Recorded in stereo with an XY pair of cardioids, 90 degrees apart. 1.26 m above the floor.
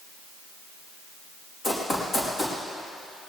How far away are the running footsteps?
About 4.5 m.